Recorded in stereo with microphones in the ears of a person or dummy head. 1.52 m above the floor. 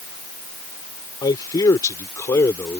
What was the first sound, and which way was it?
A man speaking, 20° left (ahead or behind).